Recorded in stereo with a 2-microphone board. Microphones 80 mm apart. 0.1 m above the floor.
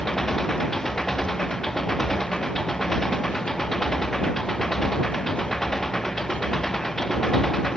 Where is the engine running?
5° left (ahead or behind).